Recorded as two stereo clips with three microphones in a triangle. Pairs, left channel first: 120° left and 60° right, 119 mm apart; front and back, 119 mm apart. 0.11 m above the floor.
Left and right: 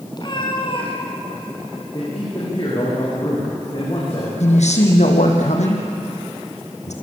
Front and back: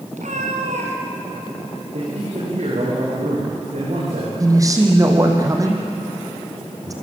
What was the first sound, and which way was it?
A cat meowing, 175° left.